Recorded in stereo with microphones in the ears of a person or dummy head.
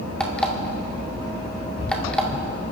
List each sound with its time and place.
0.2 s an alarm clock: 5° left (ahead or behind), 1.7 m